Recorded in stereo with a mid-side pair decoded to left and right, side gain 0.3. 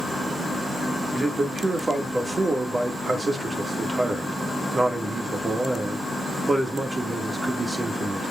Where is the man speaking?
35° right, 2.5 m.